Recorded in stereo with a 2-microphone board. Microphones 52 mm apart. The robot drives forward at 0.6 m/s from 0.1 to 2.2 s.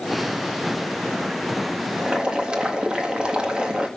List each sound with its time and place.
2.0 s boiling: 20° right (ahead or behind), 1.6 m